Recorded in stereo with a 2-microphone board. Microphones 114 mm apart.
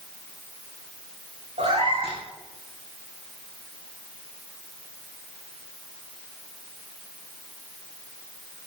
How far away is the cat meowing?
About 7.5 m.